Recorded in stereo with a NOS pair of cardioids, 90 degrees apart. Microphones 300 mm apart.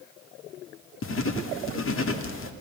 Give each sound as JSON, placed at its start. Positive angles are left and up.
{"t": 1.0, "sound": "writing", "azimuth_deg": 45, "distance_m": 2.0}